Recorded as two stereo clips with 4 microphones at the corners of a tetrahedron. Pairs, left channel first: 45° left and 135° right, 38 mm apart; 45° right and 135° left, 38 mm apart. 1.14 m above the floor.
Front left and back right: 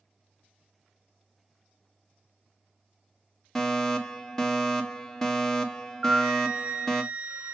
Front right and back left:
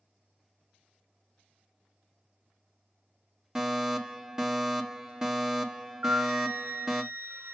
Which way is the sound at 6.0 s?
165° left.